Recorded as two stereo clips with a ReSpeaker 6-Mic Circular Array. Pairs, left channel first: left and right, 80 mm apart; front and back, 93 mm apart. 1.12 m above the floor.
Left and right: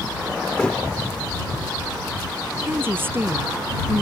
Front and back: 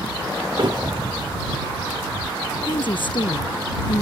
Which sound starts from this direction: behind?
A thud, at 0.6 s.